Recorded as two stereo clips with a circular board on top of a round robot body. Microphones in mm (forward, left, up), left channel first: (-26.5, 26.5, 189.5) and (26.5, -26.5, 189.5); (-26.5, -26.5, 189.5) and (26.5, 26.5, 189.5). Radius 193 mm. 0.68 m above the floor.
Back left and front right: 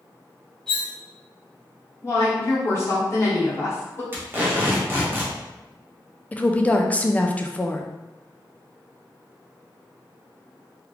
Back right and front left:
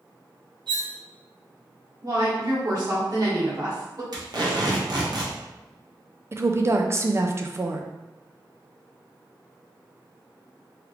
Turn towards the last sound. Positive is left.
turn(degrees=75)